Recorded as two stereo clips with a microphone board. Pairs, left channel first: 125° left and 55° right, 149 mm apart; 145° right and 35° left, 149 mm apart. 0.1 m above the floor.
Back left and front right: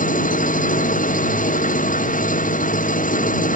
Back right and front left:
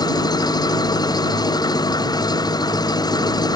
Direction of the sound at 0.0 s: 150° left.